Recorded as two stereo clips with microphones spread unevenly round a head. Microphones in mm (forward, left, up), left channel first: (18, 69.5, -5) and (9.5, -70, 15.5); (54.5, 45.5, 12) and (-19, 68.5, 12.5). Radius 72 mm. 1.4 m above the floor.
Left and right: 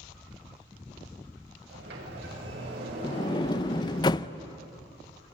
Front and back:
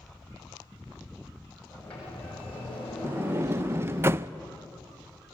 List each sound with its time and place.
1.7 s a sliding door: 100° right, 7.5 m
3.0 s a sliding door: 140° left, 0.6 m